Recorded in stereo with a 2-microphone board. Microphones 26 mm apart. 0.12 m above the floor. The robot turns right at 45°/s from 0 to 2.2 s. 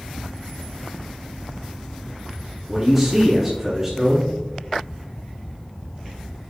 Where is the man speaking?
5° right (ahead or behind), 1.2 m.